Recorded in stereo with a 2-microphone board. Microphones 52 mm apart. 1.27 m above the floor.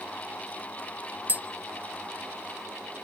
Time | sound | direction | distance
1.3 | tapping | 35° right (ahead or behind) | 0.5 m